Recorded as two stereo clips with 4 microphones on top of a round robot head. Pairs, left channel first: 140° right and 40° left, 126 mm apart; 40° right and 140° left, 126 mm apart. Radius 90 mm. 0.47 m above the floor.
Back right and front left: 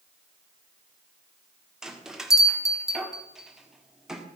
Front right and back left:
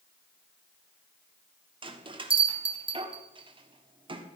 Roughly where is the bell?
Behind left.